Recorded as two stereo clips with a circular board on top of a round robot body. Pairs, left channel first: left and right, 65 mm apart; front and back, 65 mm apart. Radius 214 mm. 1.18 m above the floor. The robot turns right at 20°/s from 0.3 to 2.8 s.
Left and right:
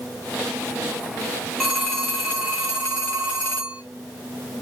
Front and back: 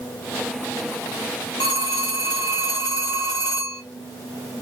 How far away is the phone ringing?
About 0.6 m.